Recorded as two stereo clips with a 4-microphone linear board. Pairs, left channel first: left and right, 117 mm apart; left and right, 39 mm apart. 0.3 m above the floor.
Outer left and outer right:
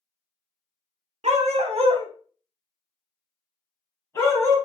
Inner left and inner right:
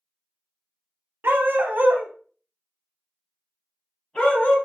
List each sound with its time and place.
1.2 s a dog barking: 70° right (ahead or behind), 0.7 m; by 4.5 s 25° left (ahead or behind), 1.4 m